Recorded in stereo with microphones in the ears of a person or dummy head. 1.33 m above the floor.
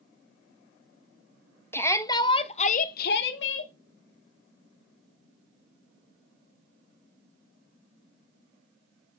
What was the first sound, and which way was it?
A shout, 15° left (ahead or behind).